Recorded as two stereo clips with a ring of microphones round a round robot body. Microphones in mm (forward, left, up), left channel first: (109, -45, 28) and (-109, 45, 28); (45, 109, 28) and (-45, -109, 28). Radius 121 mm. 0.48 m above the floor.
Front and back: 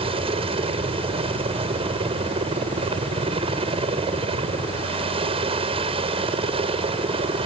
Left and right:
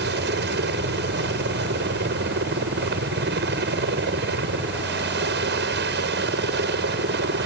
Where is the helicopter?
140° right.